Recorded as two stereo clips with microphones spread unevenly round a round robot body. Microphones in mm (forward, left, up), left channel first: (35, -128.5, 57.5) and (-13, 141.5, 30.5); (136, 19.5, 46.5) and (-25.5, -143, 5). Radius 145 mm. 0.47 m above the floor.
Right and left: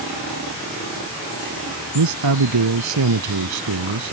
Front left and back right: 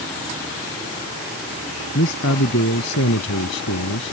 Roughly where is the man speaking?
Left.